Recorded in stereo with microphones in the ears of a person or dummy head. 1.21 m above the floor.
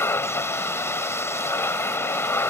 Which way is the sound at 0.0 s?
15° left (ahead or behind).